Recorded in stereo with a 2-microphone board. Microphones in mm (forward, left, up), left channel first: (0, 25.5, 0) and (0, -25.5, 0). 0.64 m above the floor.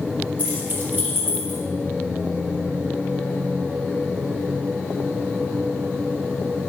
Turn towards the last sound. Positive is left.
turn(degrees=-60)  # may be behind; listen again after turning